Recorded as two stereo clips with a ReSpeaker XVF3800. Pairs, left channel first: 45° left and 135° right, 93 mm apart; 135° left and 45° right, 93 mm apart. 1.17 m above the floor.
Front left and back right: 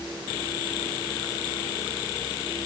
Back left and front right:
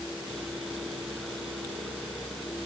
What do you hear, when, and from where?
Only background noise.